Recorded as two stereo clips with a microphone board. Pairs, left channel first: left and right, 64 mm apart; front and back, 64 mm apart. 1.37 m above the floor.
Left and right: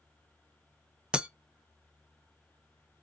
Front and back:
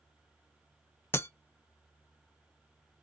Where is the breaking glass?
20° right, 0.6 m.